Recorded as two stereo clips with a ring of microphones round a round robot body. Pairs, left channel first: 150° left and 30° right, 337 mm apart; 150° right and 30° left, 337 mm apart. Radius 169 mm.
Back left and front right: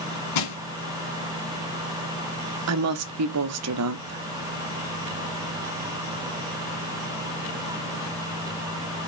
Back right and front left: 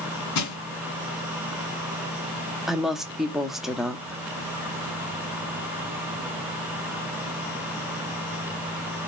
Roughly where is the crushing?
Behind.